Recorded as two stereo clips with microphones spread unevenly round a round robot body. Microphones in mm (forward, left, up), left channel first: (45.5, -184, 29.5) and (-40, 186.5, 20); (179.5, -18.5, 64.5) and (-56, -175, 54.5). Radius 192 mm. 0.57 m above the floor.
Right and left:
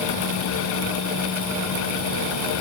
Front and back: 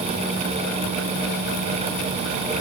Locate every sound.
Only background noise.